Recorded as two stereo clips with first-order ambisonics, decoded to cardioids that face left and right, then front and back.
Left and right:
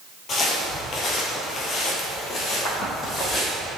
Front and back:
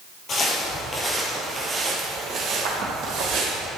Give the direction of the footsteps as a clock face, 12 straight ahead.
11 o'clock.